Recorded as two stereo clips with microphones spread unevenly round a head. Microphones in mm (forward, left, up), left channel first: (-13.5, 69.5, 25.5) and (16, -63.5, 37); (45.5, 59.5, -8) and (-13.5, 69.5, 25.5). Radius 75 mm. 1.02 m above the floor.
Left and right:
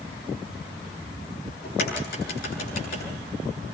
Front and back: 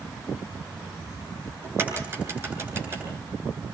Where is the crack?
125° left, 9.5 m.